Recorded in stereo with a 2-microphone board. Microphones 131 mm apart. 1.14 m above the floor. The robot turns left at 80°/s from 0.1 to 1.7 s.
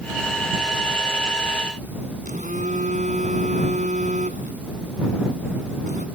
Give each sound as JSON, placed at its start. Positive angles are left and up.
{"t": 2.2, "sound": "a phone buzzing", "side_deg": -75}